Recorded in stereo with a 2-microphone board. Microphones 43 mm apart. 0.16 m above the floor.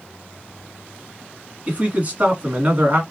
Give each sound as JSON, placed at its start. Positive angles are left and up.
{"t": 1.7, "sound": "a man speaking", "side_deg": -35, "distance_m": 1.7}